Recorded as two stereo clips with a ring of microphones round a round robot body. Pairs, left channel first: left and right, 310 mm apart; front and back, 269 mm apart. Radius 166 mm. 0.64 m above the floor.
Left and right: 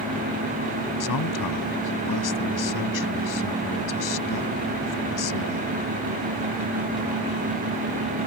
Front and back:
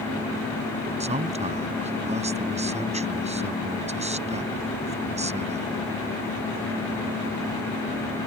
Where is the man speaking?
115° left.